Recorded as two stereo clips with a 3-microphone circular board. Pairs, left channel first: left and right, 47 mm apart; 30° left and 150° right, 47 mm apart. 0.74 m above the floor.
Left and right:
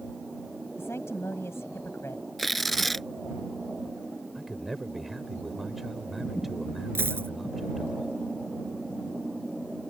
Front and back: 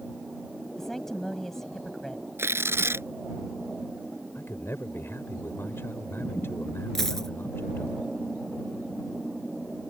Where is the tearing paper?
Straight behind.